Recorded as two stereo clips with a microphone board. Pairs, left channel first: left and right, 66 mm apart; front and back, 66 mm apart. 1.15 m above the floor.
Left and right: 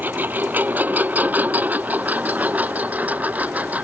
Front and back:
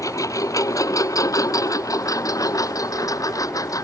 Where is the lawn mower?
30° right; by 3.8 s 25° right.